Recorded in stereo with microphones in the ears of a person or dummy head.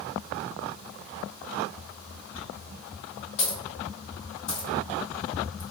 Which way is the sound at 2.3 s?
50° left (ahead or behind).